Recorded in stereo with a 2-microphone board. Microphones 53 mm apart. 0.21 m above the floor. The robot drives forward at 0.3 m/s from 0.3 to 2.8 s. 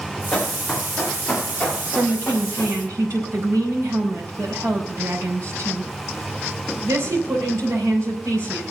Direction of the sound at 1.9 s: 70° right (ahead or behind).